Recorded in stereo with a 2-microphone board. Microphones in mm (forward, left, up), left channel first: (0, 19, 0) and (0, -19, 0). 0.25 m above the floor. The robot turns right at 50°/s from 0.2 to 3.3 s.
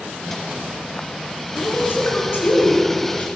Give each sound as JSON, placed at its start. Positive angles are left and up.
{"t": 1.6, "sound": "a woman speaking", "azimuth_deg": 55, "distance_m": 2.5}